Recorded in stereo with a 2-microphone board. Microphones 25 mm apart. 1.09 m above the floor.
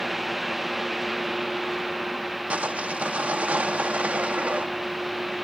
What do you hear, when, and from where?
2.5 s sawing: 75° right (ahead or behind)